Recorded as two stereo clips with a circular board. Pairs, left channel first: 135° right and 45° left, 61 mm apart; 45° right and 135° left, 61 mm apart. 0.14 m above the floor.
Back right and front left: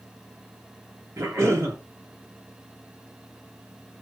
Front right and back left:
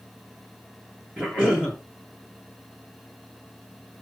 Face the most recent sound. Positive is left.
turn(degrees=75)